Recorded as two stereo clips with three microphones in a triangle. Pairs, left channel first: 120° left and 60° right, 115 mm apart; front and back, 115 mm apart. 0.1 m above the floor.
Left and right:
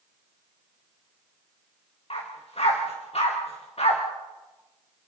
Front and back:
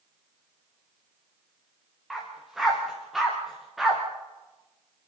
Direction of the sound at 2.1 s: 95° left.